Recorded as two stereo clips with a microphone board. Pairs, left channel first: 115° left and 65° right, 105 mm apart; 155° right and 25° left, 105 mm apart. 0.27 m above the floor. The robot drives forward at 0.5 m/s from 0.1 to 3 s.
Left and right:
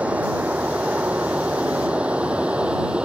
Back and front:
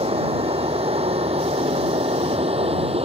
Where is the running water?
10° left.